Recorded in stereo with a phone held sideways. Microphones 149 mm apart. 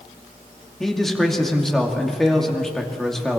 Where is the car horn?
No car horn in this recording.